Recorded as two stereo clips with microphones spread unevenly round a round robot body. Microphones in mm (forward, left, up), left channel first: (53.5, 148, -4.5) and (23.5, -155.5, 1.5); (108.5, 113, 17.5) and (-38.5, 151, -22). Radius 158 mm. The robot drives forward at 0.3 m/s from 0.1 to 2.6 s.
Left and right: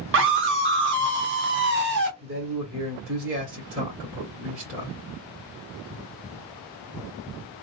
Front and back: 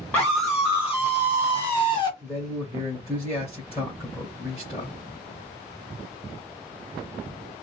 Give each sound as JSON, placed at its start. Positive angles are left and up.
{"t": 0.1, "sound": "a scream", "azimuth_deg": -115, "distance_m": 0.9}
{"t": 2.2, "sound": "a man speaking", "azimuth_deg": -120, "distance_m": 1.2}